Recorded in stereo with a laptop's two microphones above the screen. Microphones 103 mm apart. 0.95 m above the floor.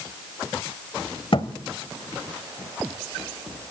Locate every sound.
1.3 s a thud: 60° left (ahead or behind), 1.1 m